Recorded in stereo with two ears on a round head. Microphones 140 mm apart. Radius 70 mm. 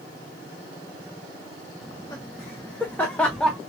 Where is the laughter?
15° left (ahead or behind), 1.4 m; by 3.6 s centre (ahead or behind), 0.5 m.